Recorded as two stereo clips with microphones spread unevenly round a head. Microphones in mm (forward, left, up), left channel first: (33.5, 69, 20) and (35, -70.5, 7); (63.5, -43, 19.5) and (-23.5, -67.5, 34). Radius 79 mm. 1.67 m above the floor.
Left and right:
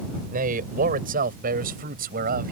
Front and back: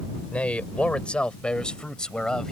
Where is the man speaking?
60° right; by 2.5 s 70° right.